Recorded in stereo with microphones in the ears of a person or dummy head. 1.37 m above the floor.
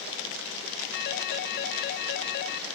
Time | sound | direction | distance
0.9 | a phone ringing | 50° left (ahead or behind) | 1.1 m